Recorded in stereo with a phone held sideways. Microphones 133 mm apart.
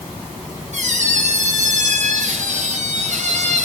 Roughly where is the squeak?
Right.